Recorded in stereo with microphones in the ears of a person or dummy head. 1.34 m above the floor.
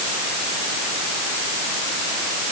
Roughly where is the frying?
I don't hear frying.